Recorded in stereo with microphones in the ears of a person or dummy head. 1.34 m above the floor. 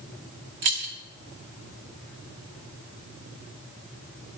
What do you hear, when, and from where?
0.6 s keys jangling: 30° right (ahead or behind), 0.6 m